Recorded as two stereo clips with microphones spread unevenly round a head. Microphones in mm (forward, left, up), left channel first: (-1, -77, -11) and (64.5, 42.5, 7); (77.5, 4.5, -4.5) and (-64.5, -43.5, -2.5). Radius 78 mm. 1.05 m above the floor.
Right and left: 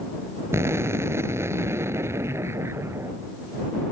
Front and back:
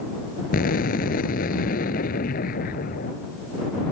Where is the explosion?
10° right.